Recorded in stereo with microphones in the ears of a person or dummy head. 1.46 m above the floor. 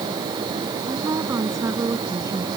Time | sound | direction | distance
0.9 | a woman speaking | 15° right (ahead or behind) | ?